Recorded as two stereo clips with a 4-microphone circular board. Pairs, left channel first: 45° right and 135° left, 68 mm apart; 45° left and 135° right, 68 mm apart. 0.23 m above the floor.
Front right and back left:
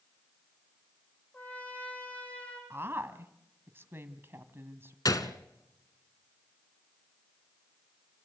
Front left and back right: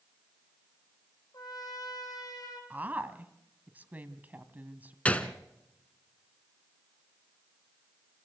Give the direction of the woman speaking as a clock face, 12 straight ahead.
6 o'clock.